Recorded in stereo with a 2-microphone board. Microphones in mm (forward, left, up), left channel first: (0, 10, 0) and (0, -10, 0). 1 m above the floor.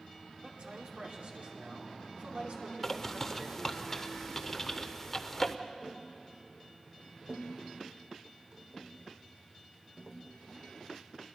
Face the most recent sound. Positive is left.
turn(degrees=-65)  # may be behind; listen again after turning